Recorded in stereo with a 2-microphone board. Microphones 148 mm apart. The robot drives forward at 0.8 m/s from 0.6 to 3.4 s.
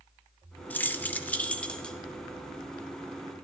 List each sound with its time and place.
0.7 s keys jangling: 10° left (ahead or behind), 0.6 m; by 2.0 s 5° left (ahead or behind), 1.0 m